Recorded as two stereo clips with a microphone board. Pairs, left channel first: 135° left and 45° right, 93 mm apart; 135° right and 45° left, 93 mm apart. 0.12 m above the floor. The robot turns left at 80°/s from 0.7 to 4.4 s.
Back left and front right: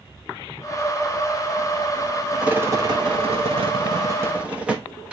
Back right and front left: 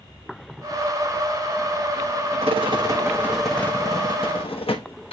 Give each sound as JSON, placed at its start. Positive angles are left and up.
{"t": 2.4, "sound": "a rattle", "azimuth_deg": 35, "distance_m": 1.4}